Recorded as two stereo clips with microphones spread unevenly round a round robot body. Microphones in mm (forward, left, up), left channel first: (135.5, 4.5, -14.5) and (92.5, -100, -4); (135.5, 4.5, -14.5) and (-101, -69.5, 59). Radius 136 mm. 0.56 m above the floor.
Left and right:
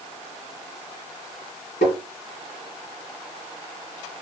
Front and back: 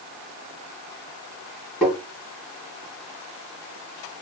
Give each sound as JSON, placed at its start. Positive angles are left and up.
{"t": 1.8, "sound": "tapping", "azimuth_deg": 110, "distance_m": 1.7}